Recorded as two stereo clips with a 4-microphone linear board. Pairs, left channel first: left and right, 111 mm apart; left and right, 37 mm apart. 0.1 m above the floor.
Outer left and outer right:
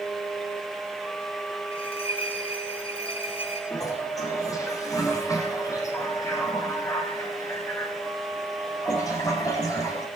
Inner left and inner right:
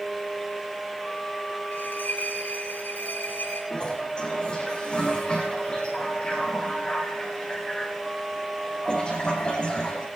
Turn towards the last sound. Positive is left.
turn(degrees=30)  # may be behind; listen again after turning